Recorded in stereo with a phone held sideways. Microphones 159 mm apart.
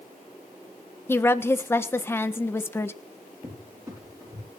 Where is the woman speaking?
15° left (ahead or behind), 1.2 m.